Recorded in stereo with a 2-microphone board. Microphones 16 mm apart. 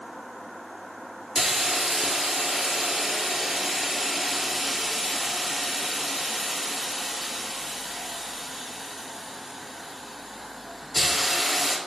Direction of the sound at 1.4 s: 15° right (ahead or behind).